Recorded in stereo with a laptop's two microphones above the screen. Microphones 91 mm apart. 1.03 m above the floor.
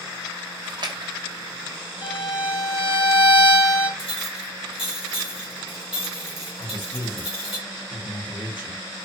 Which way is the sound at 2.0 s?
60° left (ahead or behind).